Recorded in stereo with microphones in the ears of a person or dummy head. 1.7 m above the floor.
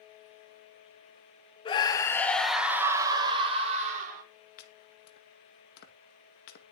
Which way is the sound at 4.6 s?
60° left (ahead or behind).